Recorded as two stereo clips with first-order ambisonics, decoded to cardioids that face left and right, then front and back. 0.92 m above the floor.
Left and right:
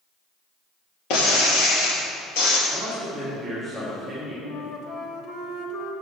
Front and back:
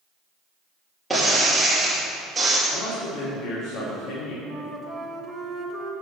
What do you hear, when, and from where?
1.1 s breaking glass: 95° left, 2.5 m
2.7 s a man speaking: 5° left, 1.8 m
4.4 s a flute: 105° left, 1.0 m